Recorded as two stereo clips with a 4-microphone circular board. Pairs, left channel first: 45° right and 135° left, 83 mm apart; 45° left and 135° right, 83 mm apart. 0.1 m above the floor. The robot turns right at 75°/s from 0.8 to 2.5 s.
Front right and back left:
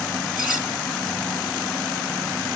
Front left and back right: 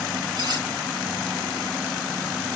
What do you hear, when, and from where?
0.3 s cutlery clinking: 140° right, 1.5 m